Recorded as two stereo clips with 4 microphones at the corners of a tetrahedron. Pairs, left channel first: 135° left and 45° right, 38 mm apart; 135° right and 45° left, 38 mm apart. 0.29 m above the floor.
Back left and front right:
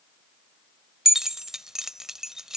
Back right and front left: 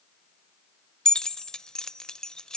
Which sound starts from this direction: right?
Keys jangling, at 1.1 s.